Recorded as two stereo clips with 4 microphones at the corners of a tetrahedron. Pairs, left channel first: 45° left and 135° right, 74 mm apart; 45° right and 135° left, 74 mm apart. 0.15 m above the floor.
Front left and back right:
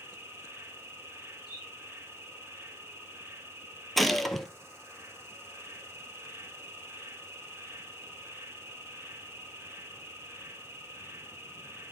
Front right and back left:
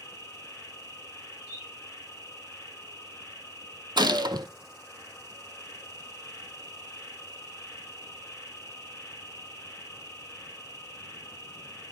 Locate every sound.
0.0 s an insect: 90° right, 3.5 m
1.4 s a bird: 135° right, 3 m
4.0 s a gunshot: 130° left, 0.6 m